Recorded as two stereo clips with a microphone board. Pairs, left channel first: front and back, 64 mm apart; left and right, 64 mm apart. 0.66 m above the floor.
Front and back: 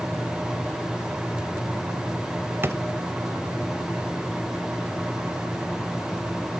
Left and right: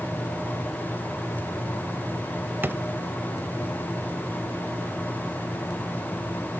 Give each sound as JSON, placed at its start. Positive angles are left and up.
{"t": 2.6, "sound": "a drawer", "azimuth_deg": -140, "distance_m": 0.6}